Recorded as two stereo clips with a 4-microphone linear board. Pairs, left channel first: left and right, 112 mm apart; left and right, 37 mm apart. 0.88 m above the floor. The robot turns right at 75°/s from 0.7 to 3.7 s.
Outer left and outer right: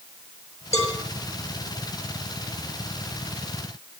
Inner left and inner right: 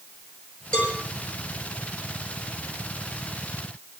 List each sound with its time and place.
0.7 s a cowbell: 25° left (ahead or behind), 6.5 m; by 1.0 s 45° left (ahead or behind), 6.5 m